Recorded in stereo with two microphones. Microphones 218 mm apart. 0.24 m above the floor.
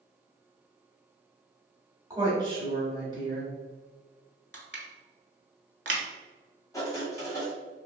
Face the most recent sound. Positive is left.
turn(degrees=15)  # may be behind; listen again after turning